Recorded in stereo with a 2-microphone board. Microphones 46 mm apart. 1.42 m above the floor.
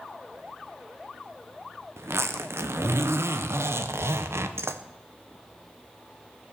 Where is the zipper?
65° right (ahead or behind), 0.9 m.